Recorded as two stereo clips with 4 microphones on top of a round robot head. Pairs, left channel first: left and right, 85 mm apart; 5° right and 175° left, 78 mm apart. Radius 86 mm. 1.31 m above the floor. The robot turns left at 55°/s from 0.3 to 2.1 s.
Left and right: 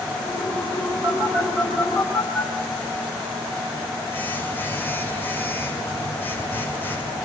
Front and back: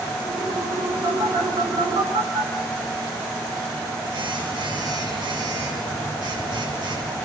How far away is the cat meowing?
No cat meowing in this recording.